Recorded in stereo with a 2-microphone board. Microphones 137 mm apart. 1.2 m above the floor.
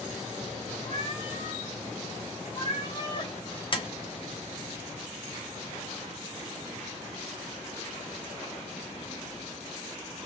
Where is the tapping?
40° left (ahead or behind), 0.7 m.